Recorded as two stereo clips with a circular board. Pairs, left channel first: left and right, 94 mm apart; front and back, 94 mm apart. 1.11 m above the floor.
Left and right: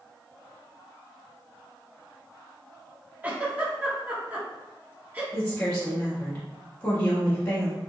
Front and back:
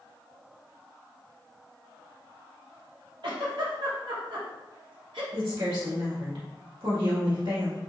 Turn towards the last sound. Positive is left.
turn(degrees=160)